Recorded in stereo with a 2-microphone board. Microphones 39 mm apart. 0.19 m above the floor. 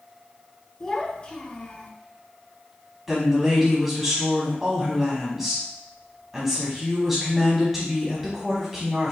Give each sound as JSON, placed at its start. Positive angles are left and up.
{"t": 0.8, "sound": "a child speaking", "side_deg": 20, "distance_m": 1.2}
{"t": 3.1, "sound": "a woman speaking", "side_deg": -5, "distance_m": 1.3}